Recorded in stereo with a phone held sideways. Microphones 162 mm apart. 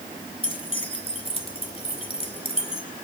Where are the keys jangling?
35° left (ahead or behind), 2 m.